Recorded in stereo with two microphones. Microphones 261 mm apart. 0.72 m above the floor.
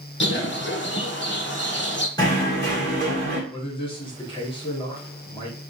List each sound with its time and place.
0.2 s a bird: 45° left (ahead or behind), 0.8 m
2.2 s knocking: 15° left (ahead or behind), 1.9 m
3.5 s a man speaking: 20° left (ahead or behind), 1.8 m